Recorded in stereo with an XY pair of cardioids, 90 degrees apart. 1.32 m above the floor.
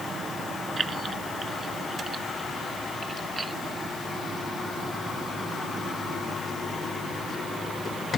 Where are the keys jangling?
40° right; by 3.5 s 30° right.